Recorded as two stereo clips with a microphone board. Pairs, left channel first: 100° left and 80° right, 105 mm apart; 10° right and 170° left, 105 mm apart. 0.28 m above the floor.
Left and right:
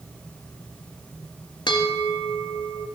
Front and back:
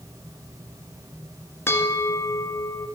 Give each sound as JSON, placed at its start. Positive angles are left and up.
{"t": 1.7, "sound": "a bell", "azimuth_deg": 55, "distance_m": 1.5}